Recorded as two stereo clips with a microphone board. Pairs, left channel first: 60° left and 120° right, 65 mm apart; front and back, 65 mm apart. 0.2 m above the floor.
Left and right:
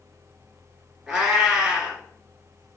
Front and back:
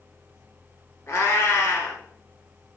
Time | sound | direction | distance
1.1 | a cat meowing | 40° right | 0.9 m